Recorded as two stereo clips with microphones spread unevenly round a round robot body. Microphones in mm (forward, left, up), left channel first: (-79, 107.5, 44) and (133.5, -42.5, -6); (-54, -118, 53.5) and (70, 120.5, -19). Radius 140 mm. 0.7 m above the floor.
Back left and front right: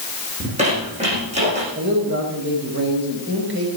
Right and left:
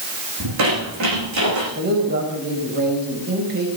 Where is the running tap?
No running tap in this recording.